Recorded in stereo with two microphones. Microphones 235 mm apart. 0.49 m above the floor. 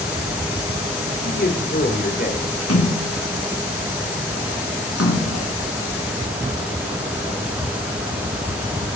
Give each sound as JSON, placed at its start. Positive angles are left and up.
{"t": 1.2, "sound": "a man speaking", "side_deg": 40, "distance_m": 2.0}
{"t": 2.6, "sound": "a splash", "side_deg": 80, "distance_m": 3.0}